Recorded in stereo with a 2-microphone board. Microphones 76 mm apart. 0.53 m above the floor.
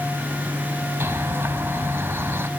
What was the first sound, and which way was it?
A bird, 35° right (ahead or behind).